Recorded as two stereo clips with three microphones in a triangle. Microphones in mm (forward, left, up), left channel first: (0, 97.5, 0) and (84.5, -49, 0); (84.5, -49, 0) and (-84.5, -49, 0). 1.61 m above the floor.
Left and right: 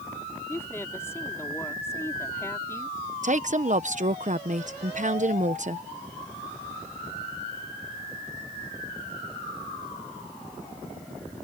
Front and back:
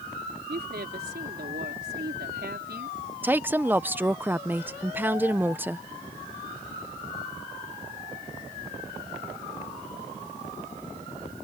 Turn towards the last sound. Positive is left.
turn(degrees=-100)